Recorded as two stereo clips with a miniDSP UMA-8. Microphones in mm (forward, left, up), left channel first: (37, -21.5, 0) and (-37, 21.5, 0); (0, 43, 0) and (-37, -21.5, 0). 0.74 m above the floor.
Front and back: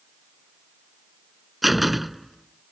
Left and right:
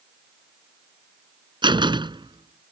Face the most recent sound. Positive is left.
turn(degrees=-120)